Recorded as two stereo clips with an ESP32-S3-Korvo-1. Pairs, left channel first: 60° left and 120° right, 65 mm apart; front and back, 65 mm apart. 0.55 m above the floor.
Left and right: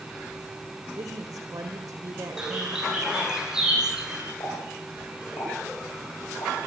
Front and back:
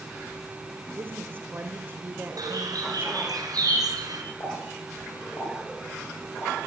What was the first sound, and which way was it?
A woman speaking, 125° right.